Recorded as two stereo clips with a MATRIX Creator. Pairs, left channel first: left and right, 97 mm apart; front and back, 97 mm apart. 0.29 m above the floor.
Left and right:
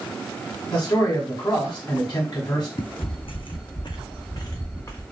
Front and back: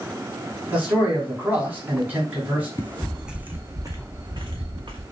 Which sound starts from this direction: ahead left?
Footsteps, at 2.8 s.